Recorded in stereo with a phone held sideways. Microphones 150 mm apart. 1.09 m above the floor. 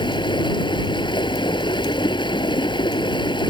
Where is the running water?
30° left (ahead or behind).